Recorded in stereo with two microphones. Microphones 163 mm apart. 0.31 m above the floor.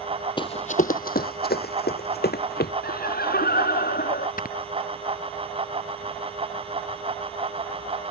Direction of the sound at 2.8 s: 70° left (ahead or behind).